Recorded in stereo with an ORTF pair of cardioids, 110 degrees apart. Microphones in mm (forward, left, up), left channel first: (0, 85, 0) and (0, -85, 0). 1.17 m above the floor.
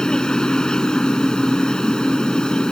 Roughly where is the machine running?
Ahead.